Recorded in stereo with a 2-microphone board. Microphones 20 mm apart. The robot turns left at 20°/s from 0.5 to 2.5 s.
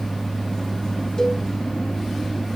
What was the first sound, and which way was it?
A cowbell, 20° left (ahead or behind).